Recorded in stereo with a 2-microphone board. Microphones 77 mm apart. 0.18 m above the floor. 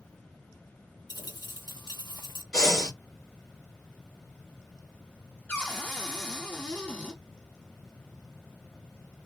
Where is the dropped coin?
60° left (ahead or behind), 1.2 m.